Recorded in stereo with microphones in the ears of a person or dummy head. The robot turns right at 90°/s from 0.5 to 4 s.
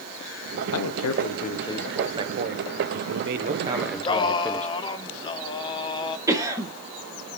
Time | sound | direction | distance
0.7 | a man speaking | 75° left | 0.8 m
3.7 | singing | centre (ahead or behind) | 0.9 m
6.3 | a cough | 20° right (ahead or behind) | 1.6 m